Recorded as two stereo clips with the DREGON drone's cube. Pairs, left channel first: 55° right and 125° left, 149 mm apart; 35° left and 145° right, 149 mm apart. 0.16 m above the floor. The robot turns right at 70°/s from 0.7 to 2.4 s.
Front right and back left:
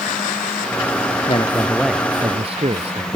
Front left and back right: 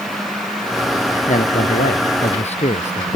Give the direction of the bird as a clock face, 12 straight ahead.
No bird in this recording.